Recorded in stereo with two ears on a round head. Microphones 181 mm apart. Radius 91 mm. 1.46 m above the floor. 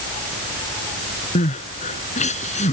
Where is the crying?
35° left (ahead or behind).